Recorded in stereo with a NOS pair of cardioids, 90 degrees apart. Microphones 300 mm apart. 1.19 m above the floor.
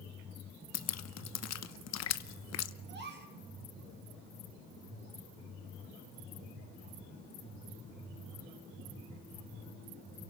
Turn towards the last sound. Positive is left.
turn(degrees=-35)